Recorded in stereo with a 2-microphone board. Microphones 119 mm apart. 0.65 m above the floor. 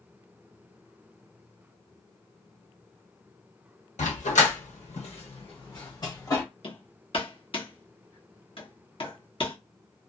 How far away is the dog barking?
About 1.0 m.